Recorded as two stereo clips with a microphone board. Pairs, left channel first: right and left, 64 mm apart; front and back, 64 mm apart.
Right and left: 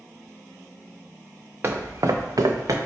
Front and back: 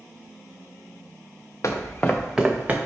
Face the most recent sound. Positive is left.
turn(degrees=115)